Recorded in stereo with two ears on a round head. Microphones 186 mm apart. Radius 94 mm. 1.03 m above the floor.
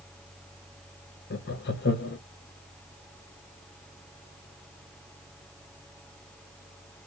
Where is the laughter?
50° left (ahead or behind), 0.8 m.